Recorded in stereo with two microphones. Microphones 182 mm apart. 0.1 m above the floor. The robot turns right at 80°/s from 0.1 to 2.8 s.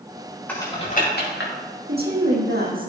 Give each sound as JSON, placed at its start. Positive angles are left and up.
{"t": 0.5, "sound": "typing on a keyboard", "side_deg": 10, "distance_m": 5.0}
{"t": 1.9, "sound": "a woman speaking", "azimuth_deg": -125, "distance_m": 4.0}